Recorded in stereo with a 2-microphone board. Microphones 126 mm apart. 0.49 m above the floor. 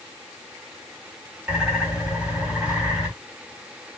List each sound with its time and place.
1.5 s a bird: 10° right (ahead or behind), 2.0 m